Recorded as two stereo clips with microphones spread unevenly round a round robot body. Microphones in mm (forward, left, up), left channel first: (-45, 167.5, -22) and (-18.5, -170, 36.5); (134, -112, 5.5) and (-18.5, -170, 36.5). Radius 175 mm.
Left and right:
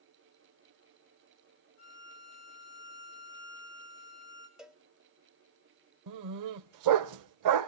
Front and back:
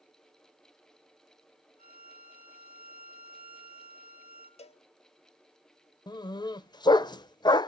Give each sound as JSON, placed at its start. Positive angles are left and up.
{"t": 1.8, "sound": "a violin", "azimuth_deg": 85, "distance_m": 3.0}
{"t": 4.6, "sound": "a cowbell", "azimuth_deg": 10, "distance_m": 0.7}
{"t": 6.1, "sound": "a dog barking", "azimuth_deg": -45, "distance_m": 0.6}